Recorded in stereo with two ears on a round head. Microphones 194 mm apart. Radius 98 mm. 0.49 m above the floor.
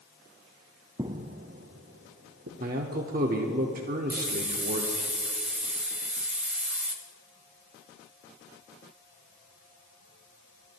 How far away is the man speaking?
About 0.8 m.